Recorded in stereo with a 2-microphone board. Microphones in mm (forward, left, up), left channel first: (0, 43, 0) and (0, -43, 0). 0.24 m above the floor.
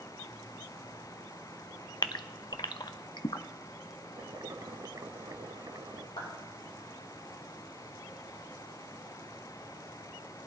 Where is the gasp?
55° left (ahead or behind), 0.5 m.